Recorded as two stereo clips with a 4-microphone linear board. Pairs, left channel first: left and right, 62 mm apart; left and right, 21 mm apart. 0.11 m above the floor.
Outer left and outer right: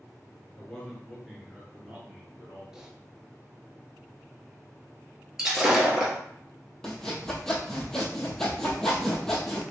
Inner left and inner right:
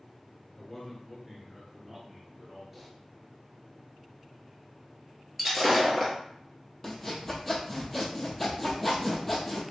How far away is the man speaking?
About 1.7 m.